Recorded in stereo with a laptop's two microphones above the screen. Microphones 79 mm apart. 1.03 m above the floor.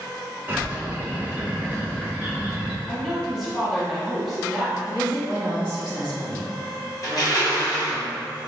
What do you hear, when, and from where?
0.5 s a bird: 25° right (ahead or behind), 0.8 m
2.9 s a woman speaking: centre (ahead or behind), 1.1 m
4.9 s a woman speaking: 65° left (ahead or behind), 1.5 m
7.0 s crushing: 50° left (ahead or behind), 1.2 m